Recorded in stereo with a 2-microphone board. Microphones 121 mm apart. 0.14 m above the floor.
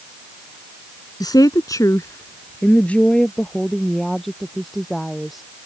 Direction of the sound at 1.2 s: 35° left (ahead or behind).